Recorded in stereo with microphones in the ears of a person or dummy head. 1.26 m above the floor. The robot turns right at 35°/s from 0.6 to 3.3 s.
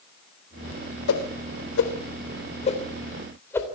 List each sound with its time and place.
1.1 s a whoosh: 85° left, 3 m; by 3.6 s 15° left (ahead or behind), 3 m